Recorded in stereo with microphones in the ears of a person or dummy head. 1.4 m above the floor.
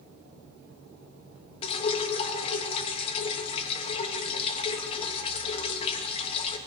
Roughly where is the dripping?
Left.